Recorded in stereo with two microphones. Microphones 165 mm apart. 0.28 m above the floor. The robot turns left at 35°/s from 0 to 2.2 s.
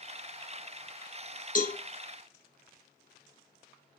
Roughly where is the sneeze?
No sneeze in this recording.